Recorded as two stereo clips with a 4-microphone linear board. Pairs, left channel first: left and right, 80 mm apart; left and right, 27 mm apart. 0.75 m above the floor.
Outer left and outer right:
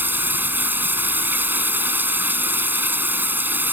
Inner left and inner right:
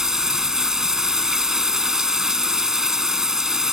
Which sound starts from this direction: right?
Running water, at 0.0 s.